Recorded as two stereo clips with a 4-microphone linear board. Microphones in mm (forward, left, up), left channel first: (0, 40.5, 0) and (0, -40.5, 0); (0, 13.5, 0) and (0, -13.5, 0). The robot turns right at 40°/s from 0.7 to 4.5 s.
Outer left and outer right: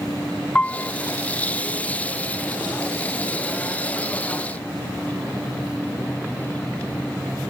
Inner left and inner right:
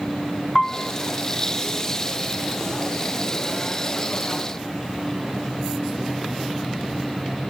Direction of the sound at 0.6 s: 15° left (ahead or behind).